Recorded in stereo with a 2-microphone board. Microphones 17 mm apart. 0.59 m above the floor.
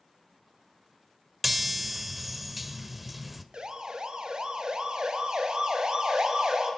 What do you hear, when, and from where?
1.4 s a chime: 5° right (ahead or behind), 1.5 m
3.5 s a siren: 50° right (ahead or behind), 2.5 m; by 6.7 s 45° right (ahead or behind), 6 m